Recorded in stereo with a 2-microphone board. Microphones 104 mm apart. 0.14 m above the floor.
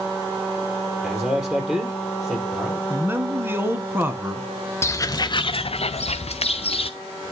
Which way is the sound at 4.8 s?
25° left (ahead or behind).